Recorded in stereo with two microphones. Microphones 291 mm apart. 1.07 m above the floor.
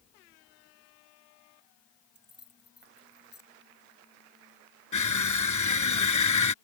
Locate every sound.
2.1 s keys jangling: 40° right (ahead or behind)
4.9 s crushing: 80° left